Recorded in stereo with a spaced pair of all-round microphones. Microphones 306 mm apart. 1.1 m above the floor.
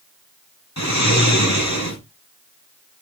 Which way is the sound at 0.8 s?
55° left (ahead or behind).